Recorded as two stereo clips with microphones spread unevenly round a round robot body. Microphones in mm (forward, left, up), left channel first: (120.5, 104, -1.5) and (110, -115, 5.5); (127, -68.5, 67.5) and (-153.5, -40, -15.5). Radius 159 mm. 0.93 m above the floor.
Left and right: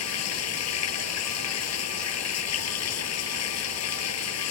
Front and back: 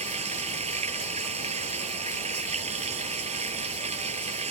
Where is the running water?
100° left.